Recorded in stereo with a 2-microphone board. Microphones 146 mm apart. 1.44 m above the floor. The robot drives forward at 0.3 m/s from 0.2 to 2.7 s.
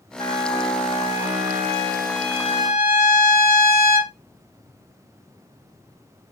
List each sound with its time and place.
0.2 s a trumpet: 45° left (ahead or behind), 1.8 m; by 4.1 s 65° left (ahead or behind), 1.4 m